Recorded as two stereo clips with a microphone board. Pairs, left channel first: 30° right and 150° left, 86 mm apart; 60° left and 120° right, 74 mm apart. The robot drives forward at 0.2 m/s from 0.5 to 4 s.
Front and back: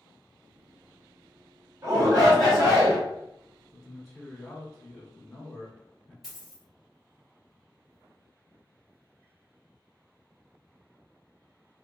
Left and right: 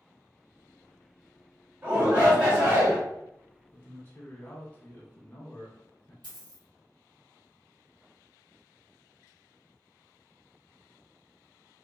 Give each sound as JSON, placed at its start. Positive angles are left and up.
{"t": 1.8, "sound": "a shout", "azimuth_deg": -175, "distance_m": 1.6}
{"t": 3.7, "sound": "a man speaking", "azimuth_deg": 45, "distance_m": 0.9}
{"t": 6.2, "sound": "a dropped coin", "azimuth_deg": -125, "distance_m": 1.3}